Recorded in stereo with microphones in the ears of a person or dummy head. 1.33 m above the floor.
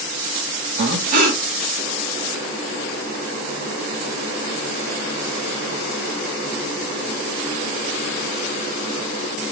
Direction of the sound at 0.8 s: 45° right (ahead or behind).